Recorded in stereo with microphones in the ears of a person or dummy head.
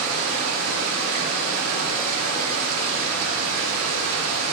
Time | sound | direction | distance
0.0 | running water | 70° right (ahead or behind) | 1.4 m